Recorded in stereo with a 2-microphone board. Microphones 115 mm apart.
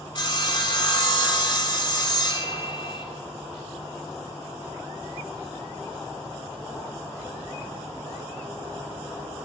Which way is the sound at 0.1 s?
40° left (ahead or behind).